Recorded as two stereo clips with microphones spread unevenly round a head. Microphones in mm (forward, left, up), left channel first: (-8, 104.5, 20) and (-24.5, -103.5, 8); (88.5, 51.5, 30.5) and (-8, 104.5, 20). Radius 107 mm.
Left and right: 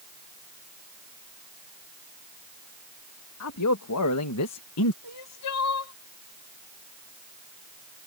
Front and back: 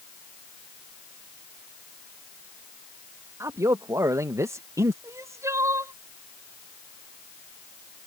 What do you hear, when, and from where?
3.4 s a man speaking: 90° left
5.0 s crying: 85° left